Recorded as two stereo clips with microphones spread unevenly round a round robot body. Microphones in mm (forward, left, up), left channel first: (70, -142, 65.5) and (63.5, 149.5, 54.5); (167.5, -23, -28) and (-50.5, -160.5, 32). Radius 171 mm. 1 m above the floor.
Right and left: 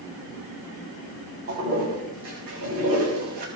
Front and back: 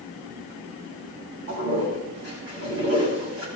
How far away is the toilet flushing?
About 6.5 m.